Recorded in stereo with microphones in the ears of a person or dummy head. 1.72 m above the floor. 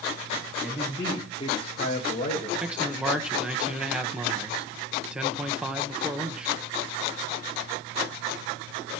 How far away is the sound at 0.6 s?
About 1.6 m.